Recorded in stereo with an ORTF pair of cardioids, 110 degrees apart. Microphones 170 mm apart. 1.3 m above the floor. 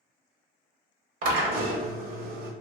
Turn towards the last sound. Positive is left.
turn(degrees=-55)